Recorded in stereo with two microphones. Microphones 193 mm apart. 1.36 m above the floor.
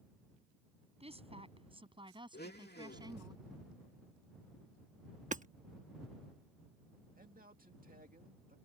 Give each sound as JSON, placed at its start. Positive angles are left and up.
{"t": 1.0, "sound": "a woman speaking", "side_deg": -30}
{"t": 2.3, "sound": "a blender", "side_deg": 55}
{"t": 5.3, "sound": "hammering", "side_deg": -40}
{"t": 7.2, "sound": "a man speaking", "side_deg": -45}